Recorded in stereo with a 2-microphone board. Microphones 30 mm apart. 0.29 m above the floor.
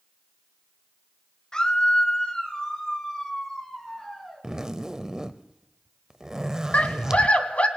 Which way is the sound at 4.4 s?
20° right (ahead or behind).